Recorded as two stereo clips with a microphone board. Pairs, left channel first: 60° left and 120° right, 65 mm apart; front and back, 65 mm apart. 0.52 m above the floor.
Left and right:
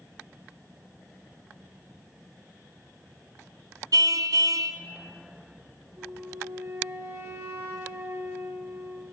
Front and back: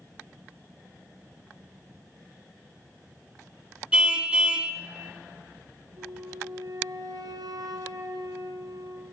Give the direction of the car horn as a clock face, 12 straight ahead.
3 o'clock.